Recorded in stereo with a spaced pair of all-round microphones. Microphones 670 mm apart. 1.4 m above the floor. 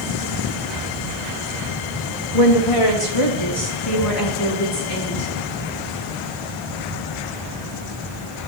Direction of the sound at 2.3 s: 55° left (ahead or behind).